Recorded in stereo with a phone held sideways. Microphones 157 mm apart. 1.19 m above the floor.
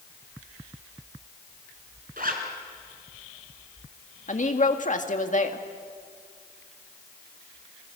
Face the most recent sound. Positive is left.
turn(degrees=55)  # may be behind; listen again after turning